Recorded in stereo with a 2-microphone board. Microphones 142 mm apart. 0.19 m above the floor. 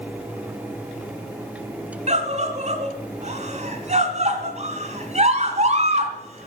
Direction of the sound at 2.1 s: 50° right (ahead or behind).